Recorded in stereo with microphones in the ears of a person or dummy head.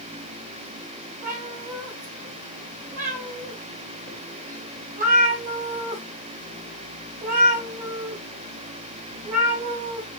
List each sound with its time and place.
1.2 s a cat meowing: 40° right (ahead or behind), 2.5 m